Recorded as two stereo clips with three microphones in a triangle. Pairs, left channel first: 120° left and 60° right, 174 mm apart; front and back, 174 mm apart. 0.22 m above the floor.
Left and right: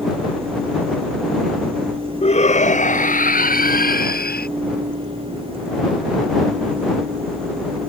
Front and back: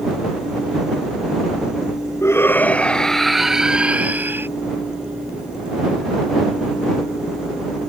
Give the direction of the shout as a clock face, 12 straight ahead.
10 o'clock.